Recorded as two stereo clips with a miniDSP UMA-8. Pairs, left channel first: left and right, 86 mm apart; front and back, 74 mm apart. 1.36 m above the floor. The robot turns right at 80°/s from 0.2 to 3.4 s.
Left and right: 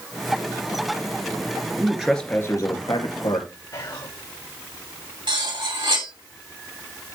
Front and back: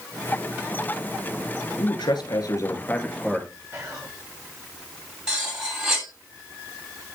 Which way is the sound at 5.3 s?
100° right.